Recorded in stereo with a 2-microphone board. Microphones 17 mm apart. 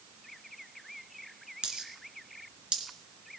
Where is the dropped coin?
80° right, 2.5 m.